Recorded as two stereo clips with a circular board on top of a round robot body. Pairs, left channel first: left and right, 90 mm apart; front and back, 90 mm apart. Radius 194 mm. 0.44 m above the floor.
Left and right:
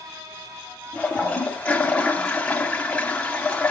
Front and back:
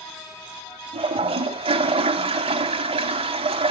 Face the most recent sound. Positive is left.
turn(degrees=170)